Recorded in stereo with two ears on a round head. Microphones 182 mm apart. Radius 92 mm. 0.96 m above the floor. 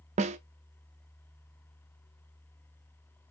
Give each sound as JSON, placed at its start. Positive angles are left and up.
{"t": 0.2, "sound": "a snare drum", "side_deg": -35, "distance_m": 0.5}